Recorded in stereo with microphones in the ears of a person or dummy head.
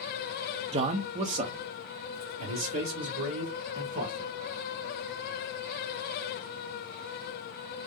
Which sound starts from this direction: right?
A man speaking, at 0.7 s.